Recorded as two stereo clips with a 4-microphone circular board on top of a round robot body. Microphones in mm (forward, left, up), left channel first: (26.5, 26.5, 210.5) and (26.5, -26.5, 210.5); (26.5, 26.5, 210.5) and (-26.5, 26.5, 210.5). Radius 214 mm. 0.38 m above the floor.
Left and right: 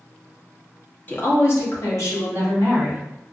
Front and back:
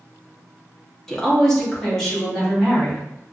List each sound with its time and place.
1.1 s a woman speaking: 75° left, 1.2 m; by 3.0 s 80° left, 3 m